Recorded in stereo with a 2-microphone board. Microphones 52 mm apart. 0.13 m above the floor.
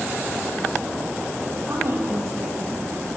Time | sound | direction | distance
1.7 | a woman speaking | 60° right (ahead or behind) | 5.5 m